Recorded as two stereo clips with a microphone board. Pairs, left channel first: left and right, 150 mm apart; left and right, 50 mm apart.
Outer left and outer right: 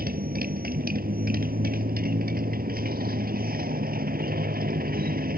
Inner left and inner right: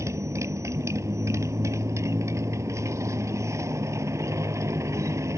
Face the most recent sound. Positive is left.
turn(degrees=-80)